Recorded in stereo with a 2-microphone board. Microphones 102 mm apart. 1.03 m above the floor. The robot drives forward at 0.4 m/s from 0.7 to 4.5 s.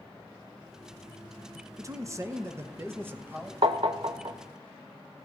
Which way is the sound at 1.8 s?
30° right (ahead or behind).